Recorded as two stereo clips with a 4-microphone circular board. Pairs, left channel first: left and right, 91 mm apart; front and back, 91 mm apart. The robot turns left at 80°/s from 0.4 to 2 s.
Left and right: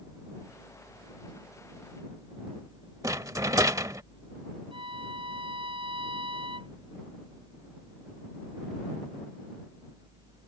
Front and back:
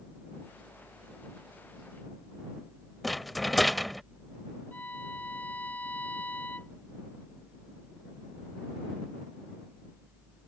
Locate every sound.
3.0 s a rattle: 90° right
4.7 s a violin: 70° right